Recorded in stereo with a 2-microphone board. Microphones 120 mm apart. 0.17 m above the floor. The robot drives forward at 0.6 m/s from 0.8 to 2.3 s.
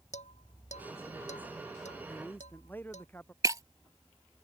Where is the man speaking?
15° left (ahead or behind).